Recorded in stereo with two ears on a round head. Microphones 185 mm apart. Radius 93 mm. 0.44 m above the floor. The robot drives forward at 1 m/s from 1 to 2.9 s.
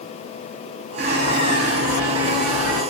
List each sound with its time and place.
1.0 s a bird: 45° right (ahead or behind), 2.5 m; by 2.8 s 85° right, 1.7 m